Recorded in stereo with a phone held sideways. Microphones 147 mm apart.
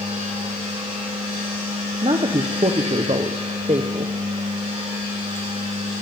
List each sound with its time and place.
0.0 s a machine running: 55° right (ahead or behind), 4.5 m
2.0 s a man speaking: 40° right (ahead or behind), 0.7 m